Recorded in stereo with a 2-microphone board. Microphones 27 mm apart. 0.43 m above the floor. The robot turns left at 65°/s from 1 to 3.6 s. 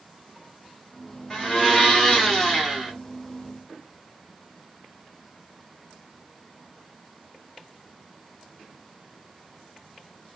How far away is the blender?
About 1.0 m.